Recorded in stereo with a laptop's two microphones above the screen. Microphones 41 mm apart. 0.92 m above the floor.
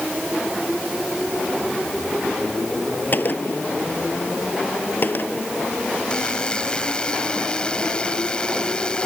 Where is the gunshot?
50° left (ahead or behind).